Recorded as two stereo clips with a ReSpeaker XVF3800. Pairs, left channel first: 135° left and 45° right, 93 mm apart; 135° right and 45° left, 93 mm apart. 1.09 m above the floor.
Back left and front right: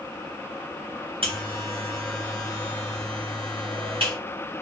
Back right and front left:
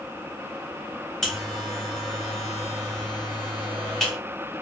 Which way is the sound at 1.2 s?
50° right.